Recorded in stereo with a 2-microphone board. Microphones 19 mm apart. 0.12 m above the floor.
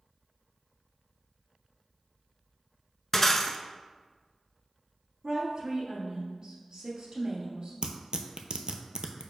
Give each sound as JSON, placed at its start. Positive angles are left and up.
{"t": 3.1, "sound": "breaking glass", "side_deg": 25, "distance_m": 0.5}
{"t": 5.2, "sound": "a woman speaking", "side_deg": -55, "distance_m": 2.0}
{"t": 7.8, "sound": "tearing paper", "side_deg": -55, "distance_m": 0.5}